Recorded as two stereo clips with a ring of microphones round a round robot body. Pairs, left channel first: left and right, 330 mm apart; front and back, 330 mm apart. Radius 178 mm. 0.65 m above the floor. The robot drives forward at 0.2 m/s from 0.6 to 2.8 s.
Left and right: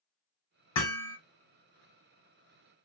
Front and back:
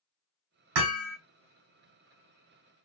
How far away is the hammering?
About 1.3 m.